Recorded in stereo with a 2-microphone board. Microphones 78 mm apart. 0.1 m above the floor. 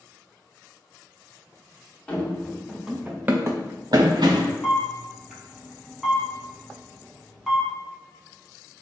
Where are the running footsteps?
15° left (ahead or behind), 1.0 m; by 4.5 s 85° right, 0.7 m.